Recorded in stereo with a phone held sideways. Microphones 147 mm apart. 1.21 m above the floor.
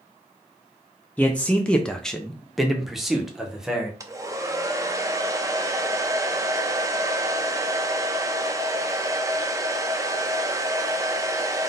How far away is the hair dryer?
About 0.6 m.